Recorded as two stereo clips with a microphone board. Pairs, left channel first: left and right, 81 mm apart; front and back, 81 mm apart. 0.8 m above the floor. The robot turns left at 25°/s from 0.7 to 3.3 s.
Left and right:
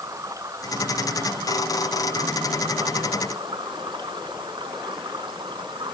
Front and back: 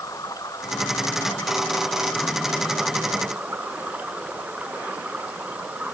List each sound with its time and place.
0.0 s running water: 40° right; by 5.9 s 105° right